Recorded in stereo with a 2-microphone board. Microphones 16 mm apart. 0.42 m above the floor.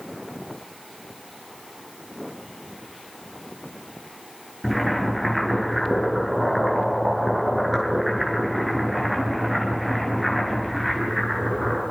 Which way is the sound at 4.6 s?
Centre (ahead or behind).